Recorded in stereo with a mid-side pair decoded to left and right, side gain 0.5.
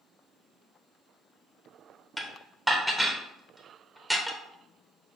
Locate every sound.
2.2 s dishes clattering: straight ahead, 0.9 m